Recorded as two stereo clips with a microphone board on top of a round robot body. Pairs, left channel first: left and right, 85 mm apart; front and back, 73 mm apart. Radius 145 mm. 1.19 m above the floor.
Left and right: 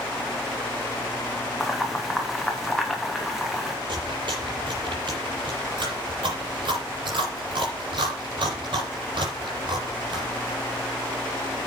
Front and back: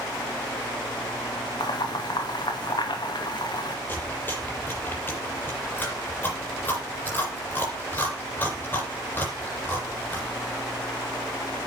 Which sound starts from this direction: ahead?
Boiling, at 1.6 s.